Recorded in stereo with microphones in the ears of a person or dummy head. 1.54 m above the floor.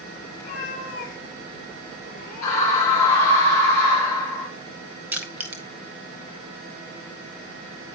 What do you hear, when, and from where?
0.4 s a cat meowing: 45° left (ahead or behind), 3 m; by 3.1 s 65° left (ahead or behind), 3.5 m
2.4 s a scream: 15° left (ahead or behind), 5 m
5.1 s crushing: 10° right (ahead or behind), 1.3 m